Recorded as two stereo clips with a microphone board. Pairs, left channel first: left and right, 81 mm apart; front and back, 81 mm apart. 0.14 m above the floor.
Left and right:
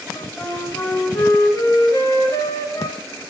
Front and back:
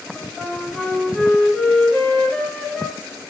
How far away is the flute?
About 1.8 m.